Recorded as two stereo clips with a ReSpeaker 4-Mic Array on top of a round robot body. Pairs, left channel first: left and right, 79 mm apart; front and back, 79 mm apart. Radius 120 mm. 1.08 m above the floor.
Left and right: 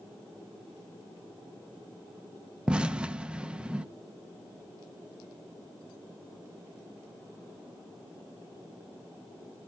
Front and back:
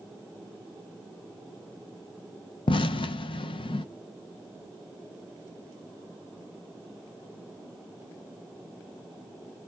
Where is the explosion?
10° right, 0.5 m.